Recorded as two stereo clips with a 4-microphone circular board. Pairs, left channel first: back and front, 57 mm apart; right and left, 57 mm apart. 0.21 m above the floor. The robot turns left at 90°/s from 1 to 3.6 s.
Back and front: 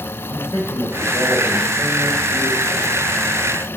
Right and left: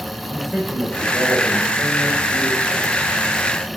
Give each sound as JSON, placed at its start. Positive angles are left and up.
{"t": 0.3, "sound": "a man speaking", "azimuth_deg": -175, "distance_m": 4.5}